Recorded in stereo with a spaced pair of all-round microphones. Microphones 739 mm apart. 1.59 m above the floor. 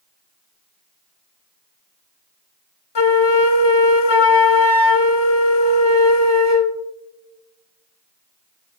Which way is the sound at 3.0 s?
35° left (ahead or behind).